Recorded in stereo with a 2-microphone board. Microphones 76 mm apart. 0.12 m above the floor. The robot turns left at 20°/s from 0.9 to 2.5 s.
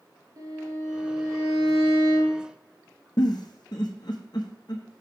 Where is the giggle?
70° left (ahead or behind), 1.3 m.